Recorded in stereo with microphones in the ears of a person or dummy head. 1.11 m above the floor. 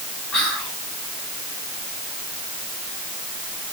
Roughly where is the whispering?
Centre.